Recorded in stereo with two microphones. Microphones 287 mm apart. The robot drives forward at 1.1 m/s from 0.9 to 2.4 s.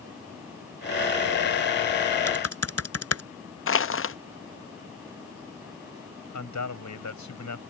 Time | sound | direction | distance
2.3 | typing on a keyboard | 55° left (ahead or behind) | ?
3.7 | crushing | 45° left (ahead or behind) | ?
6.3 | a man speaking | 80° left | ?